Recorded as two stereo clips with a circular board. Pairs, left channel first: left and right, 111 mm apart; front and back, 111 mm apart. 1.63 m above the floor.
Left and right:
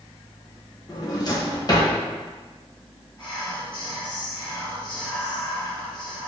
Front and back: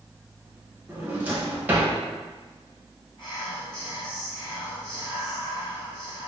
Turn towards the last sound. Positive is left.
turn(degrees=45)